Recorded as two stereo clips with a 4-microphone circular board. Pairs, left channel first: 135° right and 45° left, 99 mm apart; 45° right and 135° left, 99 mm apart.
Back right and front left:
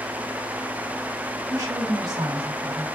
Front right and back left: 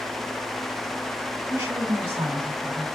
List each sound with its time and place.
1.5 s a woman speaking: 85° left, 1.3 m